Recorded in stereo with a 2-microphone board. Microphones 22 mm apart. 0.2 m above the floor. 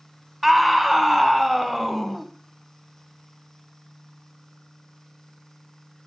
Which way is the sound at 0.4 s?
Centre (ahead or behind).